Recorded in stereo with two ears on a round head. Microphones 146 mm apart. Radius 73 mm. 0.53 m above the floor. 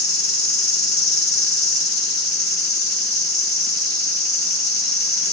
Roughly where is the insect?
Left.